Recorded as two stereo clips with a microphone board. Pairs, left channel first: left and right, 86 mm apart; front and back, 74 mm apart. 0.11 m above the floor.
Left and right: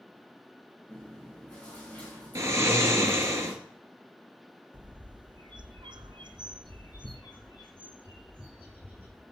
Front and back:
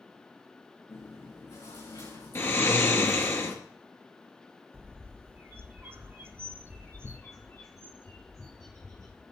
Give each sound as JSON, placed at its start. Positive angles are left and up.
{"t": 0.9, "sound": "chewing", "azimuth_deg": 15, "distance_m": 7.0}
{"t": 2.4, "sound": "snoring", "azimuth_deg": -45, "distance_m": 2.0}
{"t": 4.7, "sound": "a bird", "azimuth_deg": -120, "distance_m": 1.1}
{"t": 6.2, "sound": "a bird", "azimuth_deg": 55, "distance_m": 3.0}